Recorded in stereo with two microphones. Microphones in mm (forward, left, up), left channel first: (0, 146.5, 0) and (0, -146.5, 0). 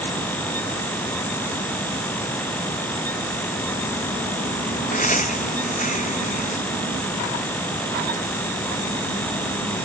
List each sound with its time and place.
4.9 s laughter: 25° left (ahead or behind)